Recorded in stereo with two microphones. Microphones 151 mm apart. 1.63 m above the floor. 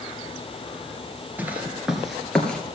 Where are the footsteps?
10° right (ahead or behind), 1.7 m; by 2.6 s 5° left (ahead or behind), 1.9 m.